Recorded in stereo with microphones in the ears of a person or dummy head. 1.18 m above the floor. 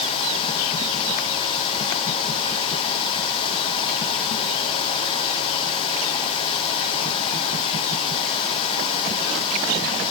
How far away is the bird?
No bird in this recording.